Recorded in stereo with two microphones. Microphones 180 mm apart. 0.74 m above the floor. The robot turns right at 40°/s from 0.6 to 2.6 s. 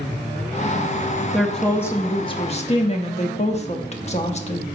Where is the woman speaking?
5° right, 1.0 m; by 4.7 s 45° left, 1.0 m.